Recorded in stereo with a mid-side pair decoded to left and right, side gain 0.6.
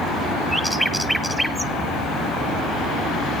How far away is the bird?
About 1.3 m.